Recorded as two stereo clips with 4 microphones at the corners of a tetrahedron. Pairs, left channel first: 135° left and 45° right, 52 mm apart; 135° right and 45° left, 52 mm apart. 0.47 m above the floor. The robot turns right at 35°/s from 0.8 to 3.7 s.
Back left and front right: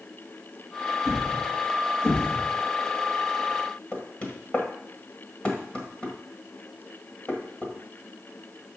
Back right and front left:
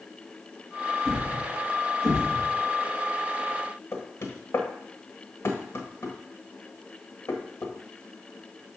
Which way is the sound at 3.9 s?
160° right.